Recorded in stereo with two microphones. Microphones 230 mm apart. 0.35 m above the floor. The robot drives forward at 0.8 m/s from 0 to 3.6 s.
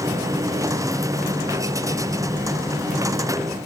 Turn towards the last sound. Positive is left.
No sound to turn to.